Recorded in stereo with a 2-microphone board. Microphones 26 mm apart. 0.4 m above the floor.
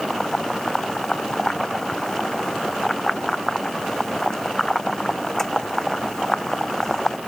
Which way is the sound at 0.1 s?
15° left (ahead or behind).